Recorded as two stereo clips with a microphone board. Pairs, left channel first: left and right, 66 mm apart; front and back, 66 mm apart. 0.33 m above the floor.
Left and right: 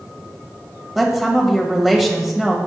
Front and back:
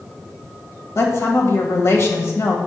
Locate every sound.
0.9 s a woman speaking: 5° right, 1.6 m